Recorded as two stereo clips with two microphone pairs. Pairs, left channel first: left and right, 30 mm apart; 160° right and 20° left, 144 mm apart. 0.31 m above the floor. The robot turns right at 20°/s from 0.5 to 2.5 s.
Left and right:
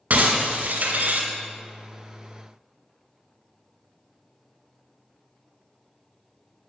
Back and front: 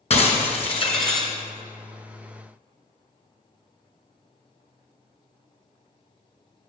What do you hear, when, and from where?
0.1 s breaking glass: 115° right, 2.5 m; by 1.3 s 100° right, 2.5 m